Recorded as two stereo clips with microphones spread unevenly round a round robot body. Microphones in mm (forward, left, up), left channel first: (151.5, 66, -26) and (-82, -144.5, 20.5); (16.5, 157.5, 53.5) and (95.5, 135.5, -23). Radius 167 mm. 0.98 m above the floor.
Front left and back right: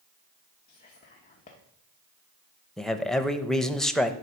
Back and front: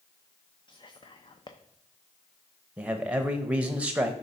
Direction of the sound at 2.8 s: 40° right.